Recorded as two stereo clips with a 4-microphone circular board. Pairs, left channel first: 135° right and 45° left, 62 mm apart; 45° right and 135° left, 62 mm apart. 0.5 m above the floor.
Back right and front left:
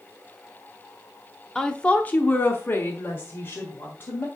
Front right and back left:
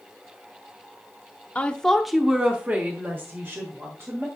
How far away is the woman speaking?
About 0.9 m.